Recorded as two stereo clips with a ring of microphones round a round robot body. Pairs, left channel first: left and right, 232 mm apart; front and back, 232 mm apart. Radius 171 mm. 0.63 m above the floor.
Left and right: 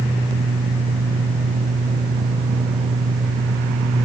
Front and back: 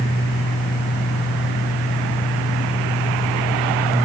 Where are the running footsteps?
No running footsteps in this recording.